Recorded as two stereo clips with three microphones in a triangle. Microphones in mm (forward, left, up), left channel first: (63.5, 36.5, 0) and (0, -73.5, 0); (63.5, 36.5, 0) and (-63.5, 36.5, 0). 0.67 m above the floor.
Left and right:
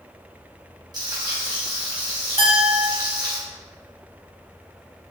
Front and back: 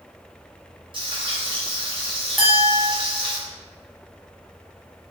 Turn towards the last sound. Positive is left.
turn(degrees=-95)